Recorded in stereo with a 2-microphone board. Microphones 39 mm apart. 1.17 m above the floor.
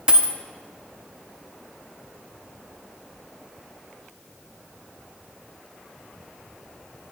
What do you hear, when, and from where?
0.1 s a dropped coin: 25° right (ahead or behind), 0.7 m